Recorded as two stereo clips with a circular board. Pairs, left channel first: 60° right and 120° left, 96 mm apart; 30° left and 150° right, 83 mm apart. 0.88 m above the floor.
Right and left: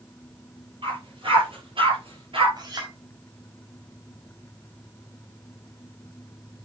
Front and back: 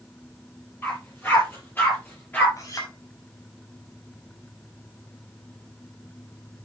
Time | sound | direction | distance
0.8 | a dog barking | 90° left | 7 m
2.6 | a clink | 75° left | 4.5 m